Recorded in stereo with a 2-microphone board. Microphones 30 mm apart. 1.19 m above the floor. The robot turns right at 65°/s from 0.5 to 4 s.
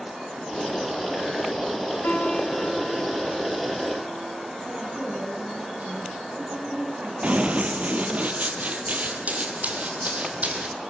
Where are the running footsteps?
45° right (ahead or behind), 1.8 m.